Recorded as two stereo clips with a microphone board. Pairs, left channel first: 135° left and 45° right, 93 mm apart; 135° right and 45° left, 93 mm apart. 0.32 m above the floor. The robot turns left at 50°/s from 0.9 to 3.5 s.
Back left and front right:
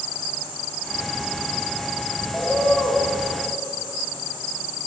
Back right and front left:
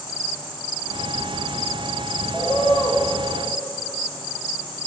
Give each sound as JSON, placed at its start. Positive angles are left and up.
{"t": 2.3, "sound": "a bird", "azimuth_deg": -150, "distance_m": 1.2}